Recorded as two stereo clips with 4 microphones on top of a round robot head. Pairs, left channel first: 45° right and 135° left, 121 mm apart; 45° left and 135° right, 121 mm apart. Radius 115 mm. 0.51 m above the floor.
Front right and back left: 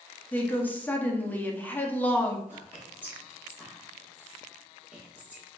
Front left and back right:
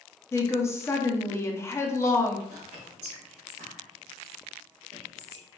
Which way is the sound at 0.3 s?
10° left.